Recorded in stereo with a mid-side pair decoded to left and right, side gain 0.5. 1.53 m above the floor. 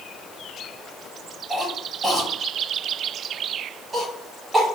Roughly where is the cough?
Ahead.